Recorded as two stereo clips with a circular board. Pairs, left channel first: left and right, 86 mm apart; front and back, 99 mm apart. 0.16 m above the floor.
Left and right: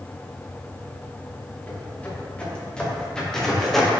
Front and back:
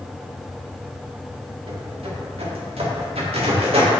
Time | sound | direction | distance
1.7 | footsteps | 160° left | 4 m